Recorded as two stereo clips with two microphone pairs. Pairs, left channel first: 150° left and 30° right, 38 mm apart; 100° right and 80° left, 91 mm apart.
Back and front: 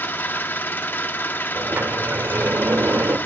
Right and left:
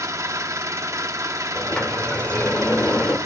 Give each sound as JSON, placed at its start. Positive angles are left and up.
{"t": 0.0, "sound": "an engine running", "azimuth_deg": 135, "distance_m": 0.9}
{"t": 1.6, "sound": "a sliding door", "azimuth_deg": -25, "distance_m": 1.7}